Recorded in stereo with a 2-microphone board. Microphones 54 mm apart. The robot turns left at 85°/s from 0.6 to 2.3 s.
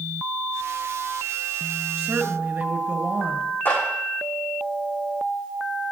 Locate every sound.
2.0 s a woman speaking: 25° right (ahead or behind), 1.5 m; by 3.5 s 45° right (ahead or behind), 1.5 m
3.6 s a clap: 40° left (ahead or behind), 6.5 m